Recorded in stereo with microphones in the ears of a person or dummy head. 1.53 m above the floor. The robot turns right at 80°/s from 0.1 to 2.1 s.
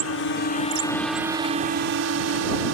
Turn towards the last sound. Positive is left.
turn(degrees=-95)